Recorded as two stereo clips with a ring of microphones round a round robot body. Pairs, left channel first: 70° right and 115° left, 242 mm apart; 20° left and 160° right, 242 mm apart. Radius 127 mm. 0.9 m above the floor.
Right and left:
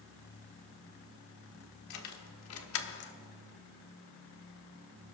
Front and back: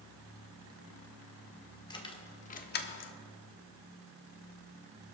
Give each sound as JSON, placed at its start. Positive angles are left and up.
{"t": 1.9, "sound": "keys jangling", "azimuth_deg": -50, "distance_m": 1.5}